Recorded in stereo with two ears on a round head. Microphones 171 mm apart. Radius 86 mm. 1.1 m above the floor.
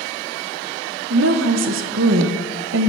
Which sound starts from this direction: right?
A woman speaking, at 1.1 s.